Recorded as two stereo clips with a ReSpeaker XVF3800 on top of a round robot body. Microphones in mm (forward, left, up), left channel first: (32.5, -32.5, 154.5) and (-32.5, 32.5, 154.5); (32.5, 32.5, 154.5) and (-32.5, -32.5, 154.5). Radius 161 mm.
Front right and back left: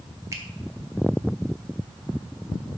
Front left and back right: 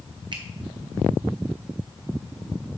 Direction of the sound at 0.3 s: 170° right.